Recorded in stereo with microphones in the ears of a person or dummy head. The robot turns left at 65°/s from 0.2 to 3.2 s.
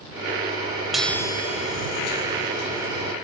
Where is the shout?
No shout in this recording.